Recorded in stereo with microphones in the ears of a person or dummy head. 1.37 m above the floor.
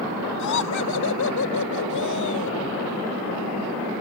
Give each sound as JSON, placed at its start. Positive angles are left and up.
{"t": 0.4, "sound": "laughter", "side_deg": 80}